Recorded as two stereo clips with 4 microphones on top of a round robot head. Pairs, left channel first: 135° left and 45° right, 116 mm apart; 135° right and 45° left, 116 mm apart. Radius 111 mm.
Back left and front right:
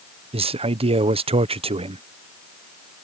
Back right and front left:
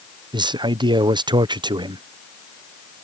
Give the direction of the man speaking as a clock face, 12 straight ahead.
12 o'clock.